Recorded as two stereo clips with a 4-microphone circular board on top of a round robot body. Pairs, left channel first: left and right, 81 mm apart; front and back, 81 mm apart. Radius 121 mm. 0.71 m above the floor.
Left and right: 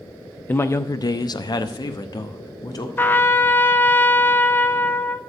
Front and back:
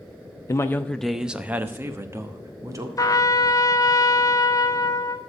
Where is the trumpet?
30° left, 0.8 m.